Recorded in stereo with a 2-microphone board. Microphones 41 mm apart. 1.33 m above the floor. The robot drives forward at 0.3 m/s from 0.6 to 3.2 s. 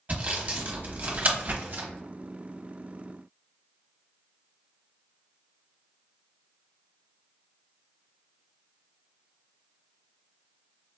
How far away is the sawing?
About 1.2 m.